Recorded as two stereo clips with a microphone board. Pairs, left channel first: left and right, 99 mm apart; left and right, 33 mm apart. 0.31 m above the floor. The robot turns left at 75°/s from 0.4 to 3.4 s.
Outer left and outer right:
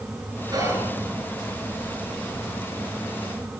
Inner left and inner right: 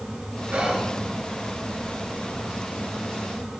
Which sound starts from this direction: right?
Whispering, at 0.5 s.